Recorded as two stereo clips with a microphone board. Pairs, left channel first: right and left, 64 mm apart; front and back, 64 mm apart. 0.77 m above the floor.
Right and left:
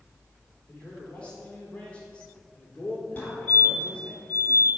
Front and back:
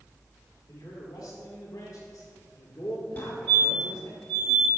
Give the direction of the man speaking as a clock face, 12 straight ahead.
1 o'clock.